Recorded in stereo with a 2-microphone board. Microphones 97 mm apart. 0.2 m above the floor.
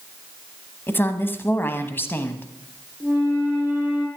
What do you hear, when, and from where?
0.9 s a woman speaking: 20° left (ahead or behind), 1.0 m
3.0 s a flute: 15° right (ahead or behind), 5 m